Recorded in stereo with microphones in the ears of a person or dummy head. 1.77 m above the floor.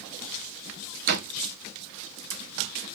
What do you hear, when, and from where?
1.1 s a door slam: 55° right (ahead or behind), 1.0 m